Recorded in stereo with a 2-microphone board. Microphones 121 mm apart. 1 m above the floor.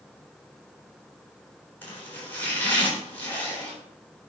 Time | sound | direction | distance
1.8 | chopping | 15° left (ahead or behind) | 3.5 m